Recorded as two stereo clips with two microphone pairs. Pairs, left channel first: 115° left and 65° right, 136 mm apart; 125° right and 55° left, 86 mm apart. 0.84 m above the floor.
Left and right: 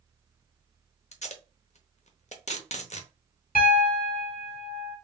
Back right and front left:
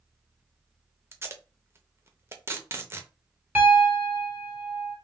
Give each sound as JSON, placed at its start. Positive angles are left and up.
{"t": 1.1, "sound": "tape being pulled", "azimuth_deg": 110, "distance_m": 0.7}
{"t": 3.5, "sound": "a piano", "azimuth_deg": 125, "distance_m": 1.5}